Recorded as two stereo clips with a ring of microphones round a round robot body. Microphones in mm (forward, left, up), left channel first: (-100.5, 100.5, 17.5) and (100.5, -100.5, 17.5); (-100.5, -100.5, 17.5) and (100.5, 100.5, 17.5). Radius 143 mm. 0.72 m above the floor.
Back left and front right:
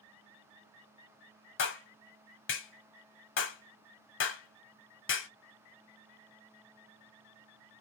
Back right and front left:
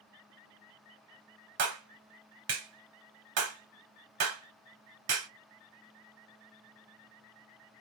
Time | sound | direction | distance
1.6 | a clap | 85° left | 1.3 m